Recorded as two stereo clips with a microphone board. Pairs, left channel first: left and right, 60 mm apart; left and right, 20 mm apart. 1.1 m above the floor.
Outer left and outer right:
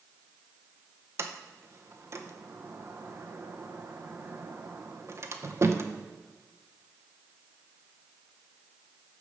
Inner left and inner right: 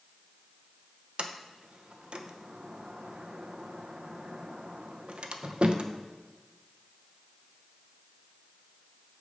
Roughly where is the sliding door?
Right.